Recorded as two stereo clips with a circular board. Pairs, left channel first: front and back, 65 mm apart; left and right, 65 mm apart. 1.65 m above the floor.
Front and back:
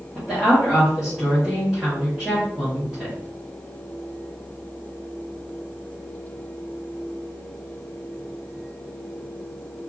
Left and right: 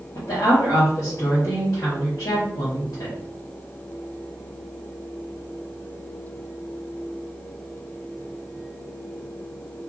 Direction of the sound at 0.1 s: 95° left.